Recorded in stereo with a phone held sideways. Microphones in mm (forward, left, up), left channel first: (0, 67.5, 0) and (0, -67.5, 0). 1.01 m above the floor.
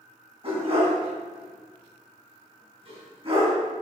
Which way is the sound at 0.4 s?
40° right (ahead or behind).